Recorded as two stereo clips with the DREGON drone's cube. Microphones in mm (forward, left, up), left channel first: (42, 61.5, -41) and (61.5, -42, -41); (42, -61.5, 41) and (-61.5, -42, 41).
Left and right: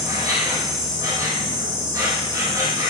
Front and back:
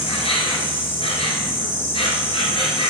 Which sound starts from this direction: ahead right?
An insect, at 0.0 s.